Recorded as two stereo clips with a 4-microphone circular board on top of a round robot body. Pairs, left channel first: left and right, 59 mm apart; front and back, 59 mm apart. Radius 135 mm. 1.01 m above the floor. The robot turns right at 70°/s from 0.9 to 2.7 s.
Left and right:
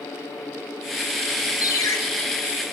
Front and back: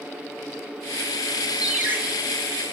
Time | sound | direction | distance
1.6 | a ringtone | 100° left | 0.8 m